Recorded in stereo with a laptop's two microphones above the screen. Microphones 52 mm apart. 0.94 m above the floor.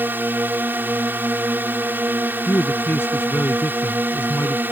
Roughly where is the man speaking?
Left.